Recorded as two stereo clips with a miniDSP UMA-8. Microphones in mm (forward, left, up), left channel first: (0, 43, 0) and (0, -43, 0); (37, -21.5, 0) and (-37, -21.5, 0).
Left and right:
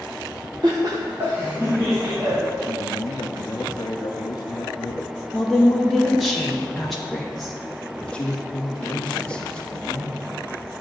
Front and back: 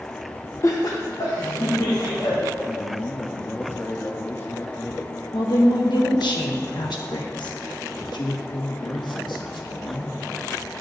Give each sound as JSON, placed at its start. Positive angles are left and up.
{"t": 0.6, "sound": "laughter", "azimuth_deg": -50, "distance_m": 0.7}
{"t": 2.7, "sound": "a man speaking", "azimuth_deg": 55, "distance_m": 0.6}
{"t": 5.3, "sound": "a woman speaking", "azimuth_deg": 5, "distance_m": 0.9}
{"t": 8.0, "sound": "a man speaking", "azimuth_deg": 15, "distance_m": 1.5}